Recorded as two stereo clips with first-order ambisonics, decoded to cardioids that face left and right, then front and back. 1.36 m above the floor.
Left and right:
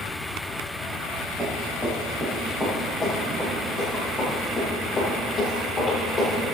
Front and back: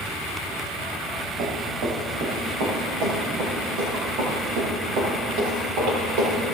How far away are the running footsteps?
About 4.5 m.